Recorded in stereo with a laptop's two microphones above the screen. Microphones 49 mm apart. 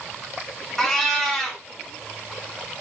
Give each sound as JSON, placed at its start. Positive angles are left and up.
{"t": 0.8, "sound": "a cat meowing", "side_deg": 10, "distance_m": 1.2}